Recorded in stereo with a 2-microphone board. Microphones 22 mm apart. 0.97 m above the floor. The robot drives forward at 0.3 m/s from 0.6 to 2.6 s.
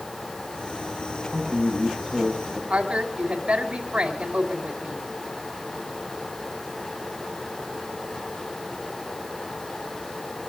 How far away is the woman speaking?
About 5.5 m.